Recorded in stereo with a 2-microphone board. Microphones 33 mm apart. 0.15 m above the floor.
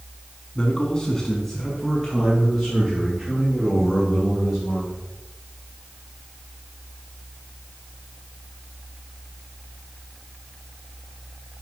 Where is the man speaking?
25° left (ahead or behind), 1.3 m; by 5.0 s 15° right (ahead or behind), 5.5 m.